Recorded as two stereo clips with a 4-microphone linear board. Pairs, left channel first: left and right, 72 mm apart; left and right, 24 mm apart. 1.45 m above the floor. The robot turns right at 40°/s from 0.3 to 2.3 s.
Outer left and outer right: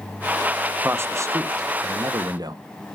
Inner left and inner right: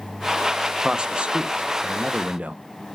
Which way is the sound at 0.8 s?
145° right.